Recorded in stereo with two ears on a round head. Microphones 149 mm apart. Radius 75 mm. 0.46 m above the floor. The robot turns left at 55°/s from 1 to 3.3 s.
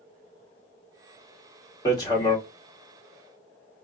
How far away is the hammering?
About 1.1 m.